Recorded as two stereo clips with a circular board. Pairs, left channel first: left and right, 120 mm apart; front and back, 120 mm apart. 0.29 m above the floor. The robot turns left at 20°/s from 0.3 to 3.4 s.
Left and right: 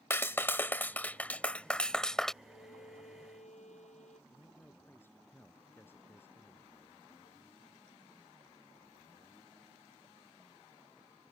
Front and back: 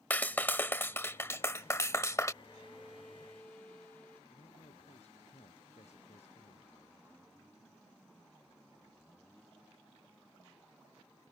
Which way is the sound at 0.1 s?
50° left.